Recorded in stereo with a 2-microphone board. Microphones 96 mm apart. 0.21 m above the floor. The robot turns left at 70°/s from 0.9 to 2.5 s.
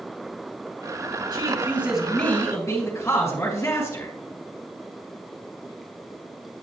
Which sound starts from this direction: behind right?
A man speaking, at 1.3 s.